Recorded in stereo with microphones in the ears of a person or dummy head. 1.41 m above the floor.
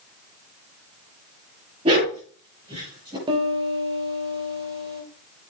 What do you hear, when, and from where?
1.9 s a dog barking: 30° right (ahead or behind), 7.5 m; by 3.2 s 25° right (ahead or behind), 6 m
3.3 s a piano: 25° right (ahead or behind), 3 m